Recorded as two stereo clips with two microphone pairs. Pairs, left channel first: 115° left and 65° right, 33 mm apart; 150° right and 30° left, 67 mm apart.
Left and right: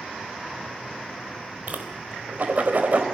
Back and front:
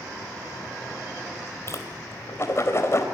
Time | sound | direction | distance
1.7 | a whoosh | 100° right | 3.5 m